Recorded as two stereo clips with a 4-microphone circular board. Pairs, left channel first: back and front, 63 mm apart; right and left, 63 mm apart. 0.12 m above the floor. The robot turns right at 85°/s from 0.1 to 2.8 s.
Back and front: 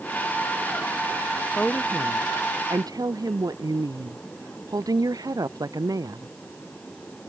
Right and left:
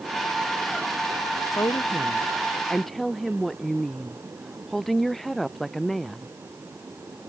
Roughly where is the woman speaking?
Right.